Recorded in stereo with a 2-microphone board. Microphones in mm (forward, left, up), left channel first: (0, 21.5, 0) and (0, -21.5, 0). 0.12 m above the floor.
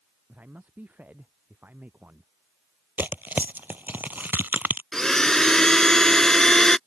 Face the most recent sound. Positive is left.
turn(degrees=15)  # may be behind; listen again after turning